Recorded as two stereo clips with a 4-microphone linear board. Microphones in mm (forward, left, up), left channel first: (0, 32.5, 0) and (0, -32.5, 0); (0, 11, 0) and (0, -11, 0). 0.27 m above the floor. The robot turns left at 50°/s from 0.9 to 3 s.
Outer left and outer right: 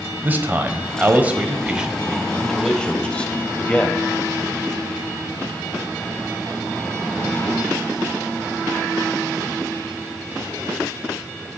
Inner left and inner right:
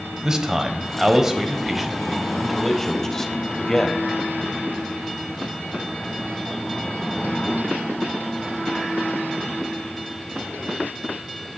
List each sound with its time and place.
0.2 s a man speaking: 110° right, 1.0 m; by 4.1 s 145° left, 1.0 m